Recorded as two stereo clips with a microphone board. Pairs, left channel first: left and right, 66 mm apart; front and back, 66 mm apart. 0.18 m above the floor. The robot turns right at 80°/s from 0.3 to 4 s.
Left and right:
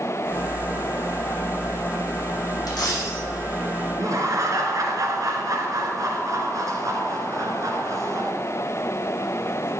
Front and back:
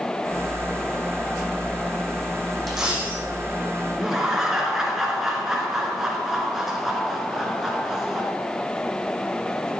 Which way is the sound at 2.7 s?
90° left.